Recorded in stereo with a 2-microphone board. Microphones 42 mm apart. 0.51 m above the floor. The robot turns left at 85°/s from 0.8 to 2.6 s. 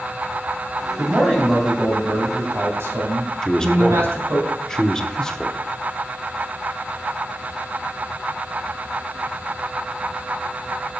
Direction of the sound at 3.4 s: 15° left (ahead or behind).